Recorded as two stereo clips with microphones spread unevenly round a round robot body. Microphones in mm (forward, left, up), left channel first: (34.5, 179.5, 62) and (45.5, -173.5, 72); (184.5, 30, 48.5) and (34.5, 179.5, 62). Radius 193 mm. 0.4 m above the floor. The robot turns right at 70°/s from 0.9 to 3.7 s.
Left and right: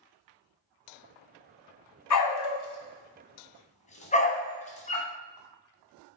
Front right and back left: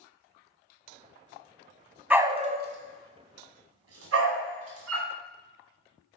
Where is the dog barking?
50° left, 1.4 m; by 5.1 s 165° left, 1.4 m.